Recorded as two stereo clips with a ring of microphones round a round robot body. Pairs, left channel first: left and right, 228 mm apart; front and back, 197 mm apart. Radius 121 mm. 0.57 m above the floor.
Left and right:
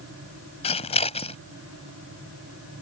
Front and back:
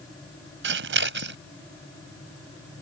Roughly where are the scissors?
Behind left.